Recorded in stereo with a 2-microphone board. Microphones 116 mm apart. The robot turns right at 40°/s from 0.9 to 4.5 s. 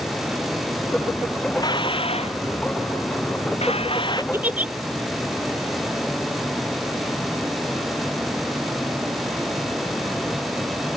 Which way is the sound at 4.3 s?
20° right (ahead or behind).